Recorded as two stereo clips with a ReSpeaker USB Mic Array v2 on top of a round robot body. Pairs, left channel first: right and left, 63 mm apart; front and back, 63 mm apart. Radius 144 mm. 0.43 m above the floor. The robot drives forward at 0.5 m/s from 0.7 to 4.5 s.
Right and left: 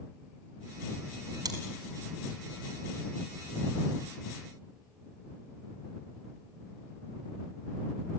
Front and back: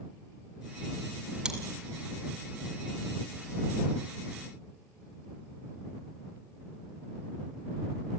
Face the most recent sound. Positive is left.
turn(degrees=130)